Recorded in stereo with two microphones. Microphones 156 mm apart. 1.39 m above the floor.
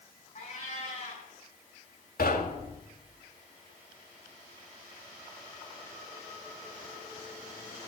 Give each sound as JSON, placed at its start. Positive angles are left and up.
{"t": 0.3, "sound": "a cat meowing", "side_deg": 45, "distance_m": 6.5}
{"t": 2.2, "sound": "knocking", "side_deg": 70, "distance_m": 2.5}